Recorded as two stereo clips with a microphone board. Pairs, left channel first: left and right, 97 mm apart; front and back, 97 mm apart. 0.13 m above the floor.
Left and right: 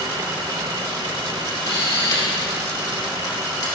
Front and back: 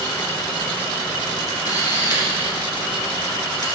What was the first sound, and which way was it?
A camera shutter, 40° left.